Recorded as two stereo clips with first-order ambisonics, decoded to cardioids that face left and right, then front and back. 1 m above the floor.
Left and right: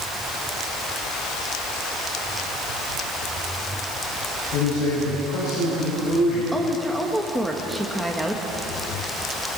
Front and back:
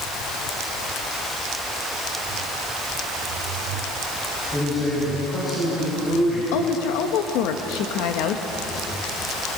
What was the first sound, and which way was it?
A man speaking, 65° left.